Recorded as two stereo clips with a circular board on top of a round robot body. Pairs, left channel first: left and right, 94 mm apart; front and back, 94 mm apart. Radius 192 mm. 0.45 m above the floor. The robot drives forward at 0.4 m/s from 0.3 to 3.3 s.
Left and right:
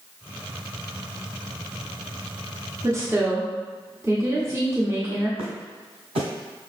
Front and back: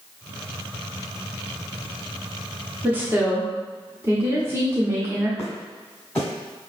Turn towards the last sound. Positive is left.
turn(degrees=-80)